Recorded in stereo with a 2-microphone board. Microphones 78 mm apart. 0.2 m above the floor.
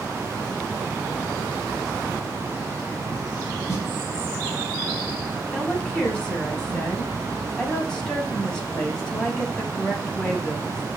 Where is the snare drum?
40° left (ahead or behind), 1.0 m.